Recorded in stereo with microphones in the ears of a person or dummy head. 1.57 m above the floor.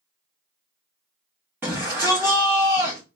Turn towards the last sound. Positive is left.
turn(degrees=-15)  # may be behind; listen again after turning